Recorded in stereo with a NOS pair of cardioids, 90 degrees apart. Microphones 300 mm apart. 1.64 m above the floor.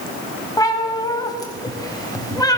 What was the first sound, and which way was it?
A cat meowing, 15° left.